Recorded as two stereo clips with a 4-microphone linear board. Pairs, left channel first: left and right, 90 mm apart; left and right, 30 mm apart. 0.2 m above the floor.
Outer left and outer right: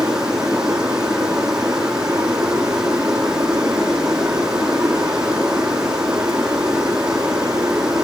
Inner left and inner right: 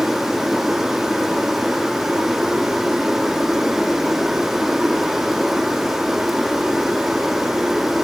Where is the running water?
10° right (ahead or behind), 7 m.